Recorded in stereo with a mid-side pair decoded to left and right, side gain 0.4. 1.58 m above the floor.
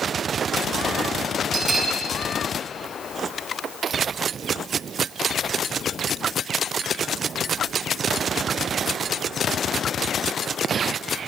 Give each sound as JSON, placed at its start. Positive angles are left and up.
{"t": 1.5, "sound": "a bell", "azimuth_deg": -45, "distance_m": 6.0}